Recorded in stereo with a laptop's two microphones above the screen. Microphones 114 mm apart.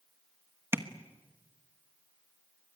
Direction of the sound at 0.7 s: 20° right (ahead or behind).